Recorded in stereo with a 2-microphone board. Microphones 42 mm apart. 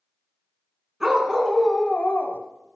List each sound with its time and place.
1.0 s a dog barking: 10° right (ahead or behind), 1.5 m; by 2.4 s 60° left (ahead or behind), 0.9 m